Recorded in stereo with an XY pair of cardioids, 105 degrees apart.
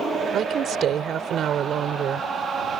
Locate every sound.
0.3 s a woman speaking: 60° right